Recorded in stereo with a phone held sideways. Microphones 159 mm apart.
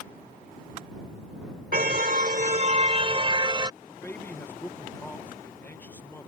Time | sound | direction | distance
1.7 | a car horn | 65° right (ahead or behind) | ?
3.8 | a man speaking | 10° left (ahead or behind) | ?